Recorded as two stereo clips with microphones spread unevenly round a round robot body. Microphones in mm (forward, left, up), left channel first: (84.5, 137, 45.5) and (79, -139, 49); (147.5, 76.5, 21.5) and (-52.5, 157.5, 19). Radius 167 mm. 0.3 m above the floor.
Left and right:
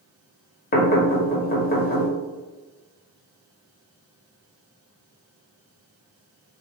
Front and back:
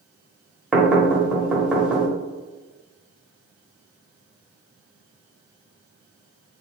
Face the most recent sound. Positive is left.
turn(degrees=75)